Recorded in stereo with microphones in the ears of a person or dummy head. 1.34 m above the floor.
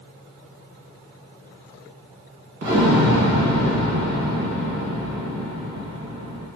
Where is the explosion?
50° right (ahead or behind), 1.2 m.